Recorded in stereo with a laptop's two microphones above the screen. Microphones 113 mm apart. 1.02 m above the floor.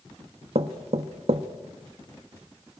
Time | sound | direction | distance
0.6 | knocking | 65° right (ahead or behind) | 1.1 m